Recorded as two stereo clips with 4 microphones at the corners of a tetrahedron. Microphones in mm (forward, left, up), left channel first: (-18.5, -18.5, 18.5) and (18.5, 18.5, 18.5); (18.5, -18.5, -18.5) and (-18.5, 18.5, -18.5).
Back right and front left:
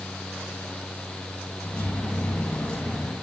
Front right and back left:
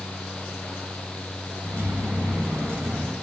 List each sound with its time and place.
1.6 s keys jangling: 155° left, 1.3 m